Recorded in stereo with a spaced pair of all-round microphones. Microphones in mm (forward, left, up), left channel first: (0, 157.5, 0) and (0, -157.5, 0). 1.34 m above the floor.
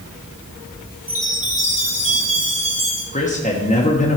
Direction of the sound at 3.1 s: 25° left (ahead or behind).